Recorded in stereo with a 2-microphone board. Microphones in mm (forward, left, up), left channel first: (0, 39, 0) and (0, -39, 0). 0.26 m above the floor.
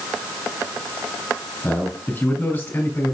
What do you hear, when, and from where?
1.6 s a man speaking: 20° left (ahead or behind), 2.5 m; by 3.1 s 30° left (ahead or behind), 1.7 m